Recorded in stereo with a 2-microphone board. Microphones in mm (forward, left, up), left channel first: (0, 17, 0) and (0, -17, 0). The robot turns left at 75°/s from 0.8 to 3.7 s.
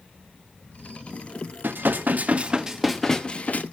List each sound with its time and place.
1.6 s dishes clattering: 85° right, 1.0 m; by 3.6 s 125° left, 1.0 m